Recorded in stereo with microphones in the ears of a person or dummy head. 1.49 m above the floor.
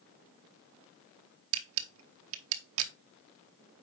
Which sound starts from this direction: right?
A camera shutter, at 1.5 s.